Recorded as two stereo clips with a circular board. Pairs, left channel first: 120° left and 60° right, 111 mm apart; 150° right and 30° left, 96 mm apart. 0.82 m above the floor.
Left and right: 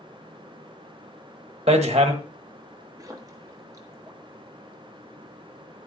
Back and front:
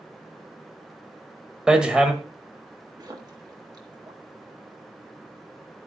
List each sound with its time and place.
1.7 s hammering: 50° right, 1.5 m
3.0 s a splash: 10° right, 1.4 m